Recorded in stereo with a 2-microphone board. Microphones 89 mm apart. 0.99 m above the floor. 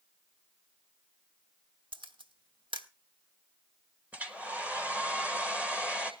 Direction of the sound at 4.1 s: 15° right (ahead or behind).